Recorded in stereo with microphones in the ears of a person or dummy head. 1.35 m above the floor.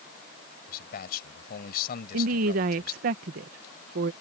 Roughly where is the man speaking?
Left.